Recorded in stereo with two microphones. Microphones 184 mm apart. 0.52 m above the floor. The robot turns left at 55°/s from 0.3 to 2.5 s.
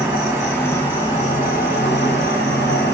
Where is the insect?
175° right, 1.6 m; by 3.0 s 65° left, 1.6 m.